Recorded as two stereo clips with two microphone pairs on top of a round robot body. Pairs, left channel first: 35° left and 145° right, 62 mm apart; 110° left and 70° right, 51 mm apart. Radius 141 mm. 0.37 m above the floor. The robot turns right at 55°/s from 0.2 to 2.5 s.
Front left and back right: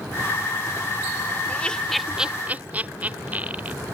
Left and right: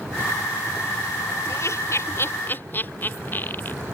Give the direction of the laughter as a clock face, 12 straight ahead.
9 o'clock.